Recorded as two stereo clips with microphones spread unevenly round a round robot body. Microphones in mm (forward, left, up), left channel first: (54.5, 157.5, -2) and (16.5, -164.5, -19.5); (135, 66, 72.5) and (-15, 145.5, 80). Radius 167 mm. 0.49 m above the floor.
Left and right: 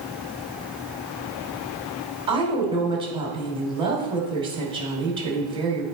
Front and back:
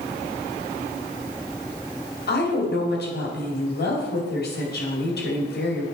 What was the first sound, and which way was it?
A woman speaking, 25° right.